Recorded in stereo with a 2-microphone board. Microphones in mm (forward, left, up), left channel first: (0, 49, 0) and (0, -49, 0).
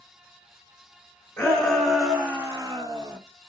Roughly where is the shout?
Centre.